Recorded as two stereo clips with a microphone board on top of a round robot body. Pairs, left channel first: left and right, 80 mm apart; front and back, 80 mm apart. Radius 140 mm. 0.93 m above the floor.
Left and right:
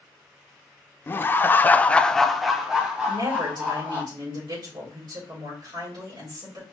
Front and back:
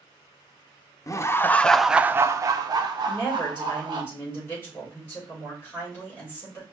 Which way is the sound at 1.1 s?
35° left.